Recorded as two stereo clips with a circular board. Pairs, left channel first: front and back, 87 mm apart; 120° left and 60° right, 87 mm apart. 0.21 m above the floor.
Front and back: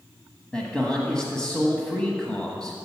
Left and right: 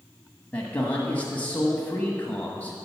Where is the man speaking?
70° left, 1.1 m.